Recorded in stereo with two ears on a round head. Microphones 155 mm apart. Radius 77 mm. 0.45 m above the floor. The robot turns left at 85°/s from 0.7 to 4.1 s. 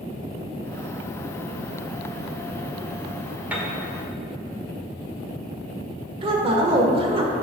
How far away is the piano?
About 1.4 m.